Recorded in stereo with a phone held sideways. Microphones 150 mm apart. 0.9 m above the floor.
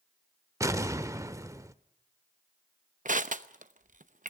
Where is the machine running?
No machine running in this recording.